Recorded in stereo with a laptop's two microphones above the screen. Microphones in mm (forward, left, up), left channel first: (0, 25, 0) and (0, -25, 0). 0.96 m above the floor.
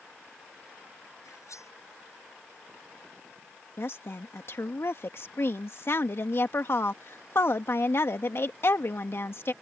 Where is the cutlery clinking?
80° left.